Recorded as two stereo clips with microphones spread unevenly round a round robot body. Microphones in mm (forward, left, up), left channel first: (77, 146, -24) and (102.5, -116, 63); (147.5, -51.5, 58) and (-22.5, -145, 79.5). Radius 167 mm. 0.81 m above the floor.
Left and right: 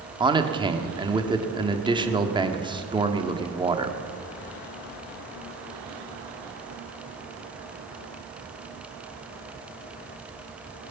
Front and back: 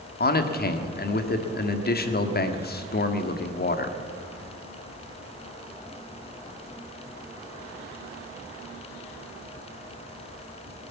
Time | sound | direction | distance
0.2 | a man speaking | 5° right | 1.7 m